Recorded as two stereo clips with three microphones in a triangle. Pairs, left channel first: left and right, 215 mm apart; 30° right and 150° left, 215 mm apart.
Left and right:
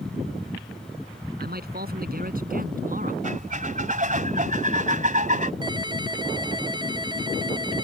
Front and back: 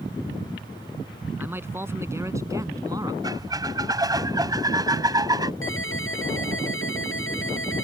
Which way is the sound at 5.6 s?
20° right.